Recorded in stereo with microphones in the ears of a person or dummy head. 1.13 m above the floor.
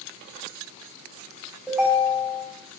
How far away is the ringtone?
About 3 m.